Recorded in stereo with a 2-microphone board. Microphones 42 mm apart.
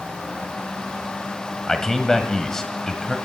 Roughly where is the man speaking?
Centre.